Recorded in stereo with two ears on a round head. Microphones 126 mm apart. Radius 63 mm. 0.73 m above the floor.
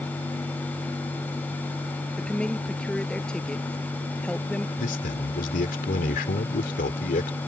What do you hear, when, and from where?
2.2 s a woman speaking: 5° left (ahead or behind)
4.8 s a man speaking: 65° left (ahead or behind)